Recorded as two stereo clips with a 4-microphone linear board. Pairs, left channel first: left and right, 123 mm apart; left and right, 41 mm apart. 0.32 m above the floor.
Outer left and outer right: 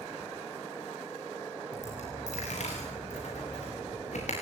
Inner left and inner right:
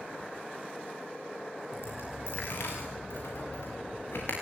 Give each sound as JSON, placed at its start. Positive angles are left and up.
{"t": 1.7, "sound": "a dropped coin", "side_deg": 70, "distance_m": 8.5}